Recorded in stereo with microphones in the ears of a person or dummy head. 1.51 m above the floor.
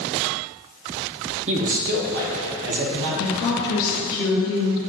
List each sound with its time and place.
1.5 s a man speaking: 35° right (ahead or behind), 1.0 m; by 3.1 s 70° right (ahead or behind), 1.9 m
3.2 s a woman speaking: 60° left (ahead or behind), 1.3 m